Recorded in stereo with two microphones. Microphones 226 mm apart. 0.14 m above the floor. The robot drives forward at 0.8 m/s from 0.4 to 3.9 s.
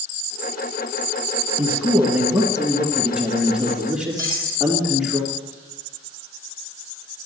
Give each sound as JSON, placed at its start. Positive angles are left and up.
{"t": 1.6, "sound": "a man speaking", "side_deg": -5, "distance_m": 1.9}
{"t": 4.2, "sound": "cutlery clinking", "side_deg": -15, "distance_m": 2.5}